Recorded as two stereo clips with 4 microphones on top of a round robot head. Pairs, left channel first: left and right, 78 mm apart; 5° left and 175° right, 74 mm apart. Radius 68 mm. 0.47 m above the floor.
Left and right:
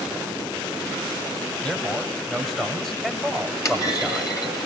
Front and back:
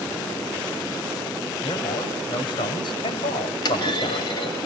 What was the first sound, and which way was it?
A man speaking, 15° left.